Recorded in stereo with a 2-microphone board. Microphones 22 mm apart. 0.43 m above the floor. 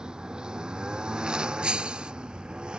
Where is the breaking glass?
60° right (ahead or behind).